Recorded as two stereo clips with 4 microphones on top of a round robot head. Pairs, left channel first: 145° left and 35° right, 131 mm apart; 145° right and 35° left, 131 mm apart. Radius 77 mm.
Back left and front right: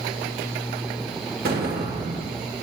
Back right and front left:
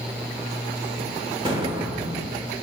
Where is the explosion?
25° right, 2 m.